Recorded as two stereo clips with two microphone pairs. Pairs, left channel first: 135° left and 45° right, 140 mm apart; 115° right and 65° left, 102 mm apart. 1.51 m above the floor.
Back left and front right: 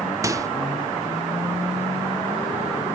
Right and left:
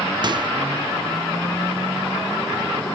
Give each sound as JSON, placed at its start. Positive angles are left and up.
{"t": 0.2, "sound": "a microwave", "azimuth_deg": 20, "distance_m": 0.8}